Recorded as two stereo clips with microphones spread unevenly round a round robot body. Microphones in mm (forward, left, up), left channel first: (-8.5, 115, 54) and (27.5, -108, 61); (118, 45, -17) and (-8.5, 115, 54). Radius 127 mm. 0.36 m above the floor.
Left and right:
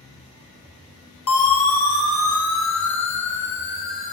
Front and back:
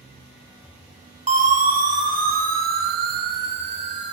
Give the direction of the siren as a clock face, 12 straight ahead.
8 o'clock.